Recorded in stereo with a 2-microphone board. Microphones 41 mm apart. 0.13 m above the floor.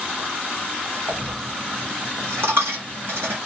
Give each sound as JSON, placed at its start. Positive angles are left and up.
{"t": 1.1, "sound": "a dropped coin", "side_deg": -80, "distance_m": 1.1}